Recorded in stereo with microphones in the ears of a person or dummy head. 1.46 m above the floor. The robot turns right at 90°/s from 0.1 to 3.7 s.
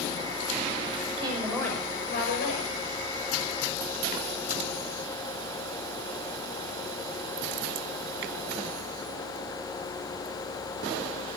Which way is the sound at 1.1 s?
45° right.